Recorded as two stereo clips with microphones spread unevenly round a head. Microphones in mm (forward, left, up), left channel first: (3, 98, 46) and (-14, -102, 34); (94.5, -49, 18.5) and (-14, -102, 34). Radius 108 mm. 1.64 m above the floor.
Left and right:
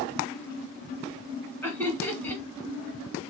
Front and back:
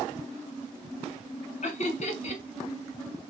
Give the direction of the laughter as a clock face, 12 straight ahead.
12 o'clock.